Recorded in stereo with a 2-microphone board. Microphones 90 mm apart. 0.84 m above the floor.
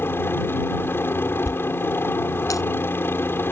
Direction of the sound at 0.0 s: 25° left (ahead or behind).